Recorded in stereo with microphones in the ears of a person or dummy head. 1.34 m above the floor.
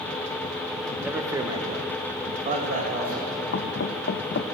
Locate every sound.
1.0 s a man speaking: 5° right (ahead or behind), 1.3 m; by 3.4 s 50° right (ahead or behind), 2.5 m
3.5 s knocking: 65° left (ahead or behind), 0.9 m